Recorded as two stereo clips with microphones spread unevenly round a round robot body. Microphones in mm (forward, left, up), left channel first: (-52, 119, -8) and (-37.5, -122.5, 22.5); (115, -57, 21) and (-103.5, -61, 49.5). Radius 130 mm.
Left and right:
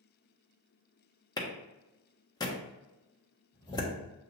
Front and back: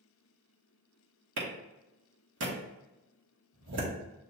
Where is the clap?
165° left, 1.4 m.